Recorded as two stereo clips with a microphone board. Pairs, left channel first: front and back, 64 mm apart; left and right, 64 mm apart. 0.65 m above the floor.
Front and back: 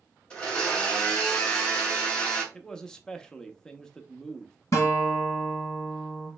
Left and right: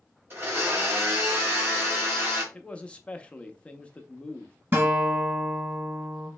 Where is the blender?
70° right, 1.5 m.